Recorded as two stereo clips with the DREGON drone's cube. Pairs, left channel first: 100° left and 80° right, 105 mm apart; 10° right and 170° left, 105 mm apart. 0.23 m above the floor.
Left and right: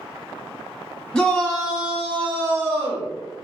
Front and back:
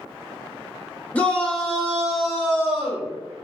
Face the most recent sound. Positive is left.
turn(degrees=-130)